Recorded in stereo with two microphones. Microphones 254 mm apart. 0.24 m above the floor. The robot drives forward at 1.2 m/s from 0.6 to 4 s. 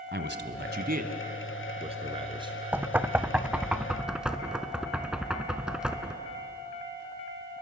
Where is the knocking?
5° right (ahead or behind), 0.6 m.